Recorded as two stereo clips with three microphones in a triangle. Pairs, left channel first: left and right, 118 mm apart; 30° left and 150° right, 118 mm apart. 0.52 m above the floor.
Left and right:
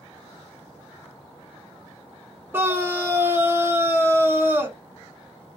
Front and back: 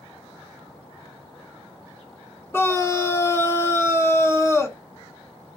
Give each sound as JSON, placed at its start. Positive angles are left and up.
{"t": 2.5, "sound": "a scream", "azimuth_deg": -25, "distance_m": 1.1}